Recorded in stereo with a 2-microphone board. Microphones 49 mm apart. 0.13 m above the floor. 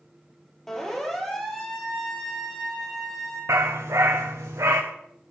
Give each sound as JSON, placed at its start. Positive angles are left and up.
{"t": 0.7, "sound": "a siren", "side_deg": 10, "distance_m": 4.5}
{"t": 3.5, "sound": "a dog barking", "side_deg": -85, "distance_m": 3.5}